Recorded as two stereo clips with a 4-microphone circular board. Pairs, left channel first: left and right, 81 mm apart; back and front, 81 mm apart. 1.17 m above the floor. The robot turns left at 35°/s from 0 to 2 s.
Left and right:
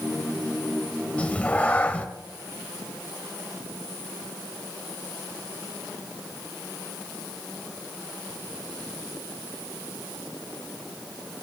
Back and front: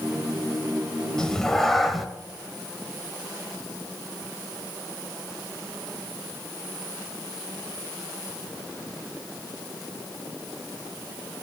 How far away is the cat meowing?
About 1.0 m.